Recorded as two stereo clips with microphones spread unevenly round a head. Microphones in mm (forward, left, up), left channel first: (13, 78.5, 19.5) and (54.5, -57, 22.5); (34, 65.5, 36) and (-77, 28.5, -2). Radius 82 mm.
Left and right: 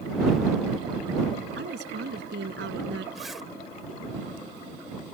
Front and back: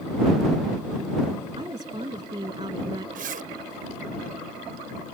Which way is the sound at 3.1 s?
160° right.